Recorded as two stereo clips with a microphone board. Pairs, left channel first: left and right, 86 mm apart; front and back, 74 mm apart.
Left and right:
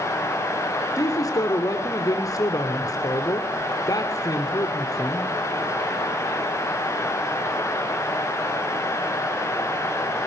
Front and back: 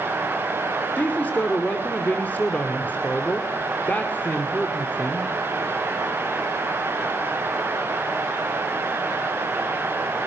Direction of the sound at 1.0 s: 60° left.